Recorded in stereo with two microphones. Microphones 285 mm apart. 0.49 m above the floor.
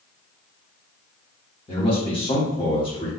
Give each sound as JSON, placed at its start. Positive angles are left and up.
{"t": 1.7, "sound": "a man speaking", "side_deg": 15, "distance_m": 1.4}